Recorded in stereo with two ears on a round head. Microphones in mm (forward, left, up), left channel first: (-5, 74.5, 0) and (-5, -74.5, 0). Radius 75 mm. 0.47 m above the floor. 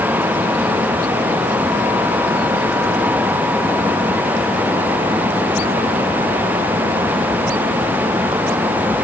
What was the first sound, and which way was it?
Only background noise.